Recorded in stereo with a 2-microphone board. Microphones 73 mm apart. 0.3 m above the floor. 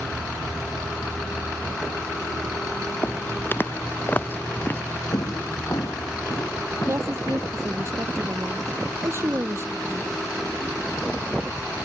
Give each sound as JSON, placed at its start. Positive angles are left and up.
{"t": 3.0, "sound": "footsteps", "side_deg": 35}
{"t": 5.1, "sound": "footsteps", "side_deg": 70}
{"t": 6.9, "sound": "a woman speaking", "side_deg": -40}